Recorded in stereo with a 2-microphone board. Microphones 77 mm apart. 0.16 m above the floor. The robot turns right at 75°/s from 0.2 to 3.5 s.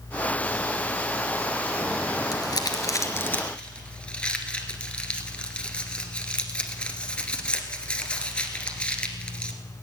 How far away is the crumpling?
About 1.5 m.